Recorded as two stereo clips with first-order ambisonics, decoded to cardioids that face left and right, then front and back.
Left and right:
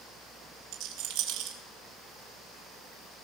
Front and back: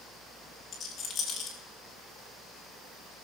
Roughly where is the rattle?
Ahead right.